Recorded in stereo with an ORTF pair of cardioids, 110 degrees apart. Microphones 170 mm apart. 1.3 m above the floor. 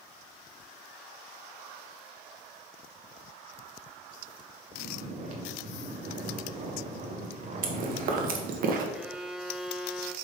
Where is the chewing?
60° right, 1.4 m.